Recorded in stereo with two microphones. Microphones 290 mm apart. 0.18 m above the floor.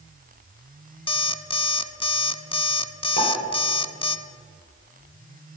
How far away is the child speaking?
I don't hear a child speaking.